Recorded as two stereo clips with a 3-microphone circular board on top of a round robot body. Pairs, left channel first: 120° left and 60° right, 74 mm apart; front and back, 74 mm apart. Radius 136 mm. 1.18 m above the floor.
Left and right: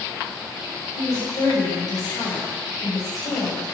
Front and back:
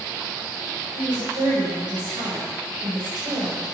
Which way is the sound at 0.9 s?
160° left.